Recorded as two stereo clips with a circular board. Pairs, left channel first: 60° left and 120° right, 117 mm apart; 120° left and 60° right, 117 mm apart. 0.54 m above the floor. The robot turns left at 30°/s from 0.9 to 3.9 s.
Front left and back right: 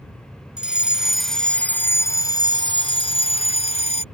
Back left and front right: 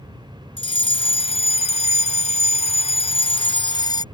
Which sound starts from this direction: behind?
A fire alarm, at 0.6 s.